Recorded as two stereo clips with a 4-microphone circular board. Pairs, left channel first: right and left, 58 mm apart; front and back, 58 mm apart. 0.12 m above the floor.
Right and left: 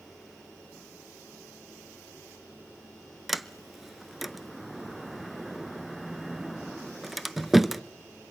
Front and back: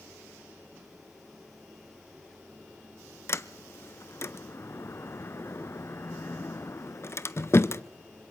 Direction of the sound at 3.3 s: Straight ahead.